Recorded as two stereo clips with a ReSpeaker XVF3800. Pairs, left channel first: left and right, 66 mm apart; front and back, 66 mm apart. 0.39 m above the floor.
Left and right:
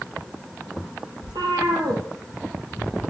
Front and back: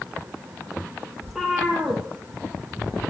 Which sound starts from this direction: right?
A cat meowing, at 1.2 s.